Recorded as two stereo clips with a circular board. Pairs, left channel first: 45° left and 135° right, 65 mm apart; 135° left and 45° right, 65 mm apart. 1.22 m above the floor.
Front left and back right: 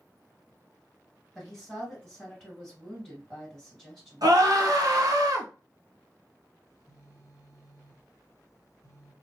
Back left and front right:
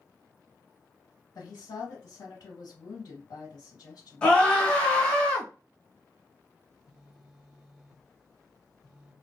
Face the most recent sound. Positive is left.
turn(degrees=55)